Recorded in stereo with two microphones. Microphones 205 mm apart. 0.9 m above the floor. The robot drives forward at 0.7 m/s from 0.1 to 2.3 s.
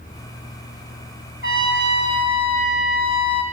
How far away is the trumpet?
About 1.8 m.